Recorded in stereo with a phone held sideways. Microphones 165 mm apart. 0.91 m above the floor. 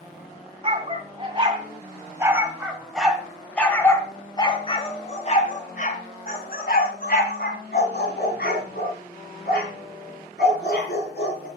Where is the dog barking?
35° right (ahead or behind), 2 m; by 11.5 s 85° left, 4 m.